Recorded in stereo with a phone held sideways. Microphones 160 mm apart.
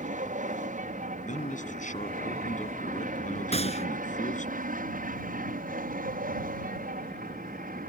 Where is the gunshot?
40° left (ahead or behind).